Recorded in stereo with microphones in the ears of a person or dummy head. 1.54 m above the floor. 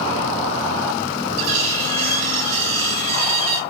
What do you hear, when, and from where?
1.4 s cutlery clinking: 65° right (ahead or behind), 2 m